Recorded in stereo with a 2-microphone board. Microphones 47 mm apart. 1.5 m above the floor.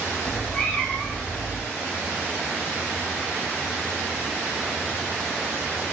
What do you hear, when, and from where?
0.2 s a cat meowing: 15° left (ahead or behind), 1.4 m